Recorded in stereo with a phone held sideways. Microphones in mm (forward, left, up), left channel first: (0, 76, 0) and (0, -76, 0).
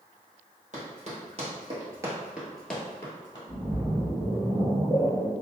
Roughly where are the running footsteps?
Right.